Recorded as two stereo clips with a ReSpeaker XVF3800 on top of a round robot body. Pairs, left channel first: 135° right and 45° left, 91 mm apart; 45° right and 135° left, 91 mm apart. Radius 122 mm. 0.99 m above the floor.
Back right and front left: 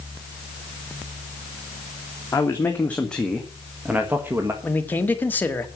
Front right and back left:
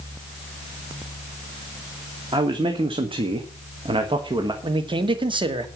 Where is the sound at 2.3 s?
165° left, 2.0 m; by 4.5 s 105° left, 1.7 m.